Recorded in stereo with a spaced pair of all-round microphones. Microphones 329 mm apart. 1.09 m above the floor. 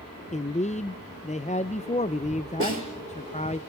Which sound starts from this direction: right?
A snare drum, at 2.6 s.